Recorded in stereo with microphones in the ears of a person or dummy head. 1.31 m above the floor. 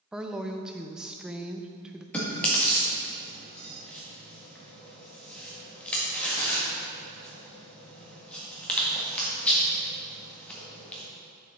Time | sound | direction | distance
0.1 | a woman speaking | 5° right (ahead or behind) | 0.5 m
2.1 | chewing | 5° left (ahead or behind) | 1.7 m